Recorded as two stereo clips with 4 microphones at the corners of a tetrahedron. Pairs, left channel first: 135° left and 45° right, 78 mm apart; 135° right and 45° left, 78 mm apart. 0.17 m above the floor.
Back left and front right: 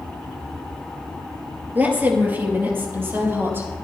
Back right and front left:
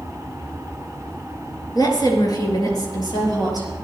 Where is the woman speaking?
110° right, 3.5 m; by 3.7 s 105° right, 5.5 m.